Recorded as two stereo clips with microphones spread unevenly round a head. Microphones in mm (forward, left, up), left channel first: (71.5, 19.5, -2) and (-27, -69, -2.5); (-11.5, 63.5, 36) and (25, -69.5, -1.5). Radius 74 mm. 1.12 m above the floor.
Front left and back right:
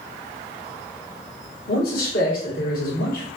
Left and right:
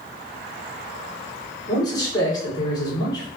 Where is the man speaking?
35° left, 1.3 m.